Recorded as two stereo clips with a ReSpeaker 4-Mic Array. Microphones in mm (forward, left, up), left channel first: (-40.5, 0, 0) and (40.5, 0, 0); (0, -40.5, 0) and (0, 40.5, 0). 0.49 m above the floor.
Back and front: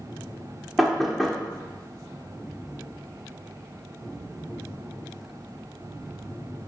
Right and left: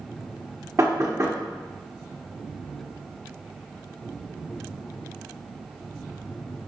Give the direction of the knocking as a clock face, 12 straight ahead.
9 o'clock.